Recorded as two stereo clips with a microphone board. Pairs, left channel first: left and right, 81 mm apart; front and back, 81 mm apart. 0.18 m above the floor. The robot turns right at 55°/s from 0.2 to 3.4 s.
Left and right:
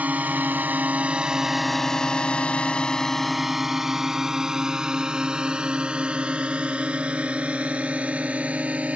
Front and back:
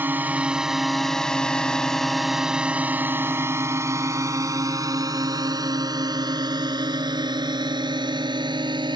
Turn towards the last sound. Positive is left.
turn(degrees=-160)